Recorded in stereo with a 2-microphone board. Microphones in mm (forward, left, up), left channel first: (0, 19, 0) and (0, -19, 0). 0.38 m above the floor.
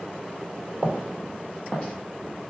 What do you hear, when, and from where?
0.7 s footsteps: 45° right (ahead or behind), 1.5 m; by 1.9 s 15° left (ahead or behind), 1.3 m